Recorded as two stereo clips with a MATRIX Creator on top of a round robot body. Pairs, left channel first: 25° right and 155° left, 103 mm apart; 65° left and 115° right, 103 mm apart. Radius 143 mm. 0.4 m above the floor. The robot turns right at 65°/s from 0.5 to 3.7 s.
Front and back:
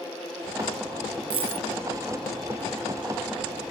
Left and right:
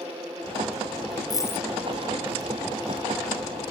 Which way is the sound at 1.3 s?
120° left.